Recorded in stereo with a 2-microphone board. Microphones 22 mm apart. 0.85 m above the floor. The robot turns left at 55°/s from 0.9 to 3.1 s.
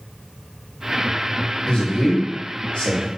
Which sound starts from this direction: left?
A man speaking, at 1.7 s.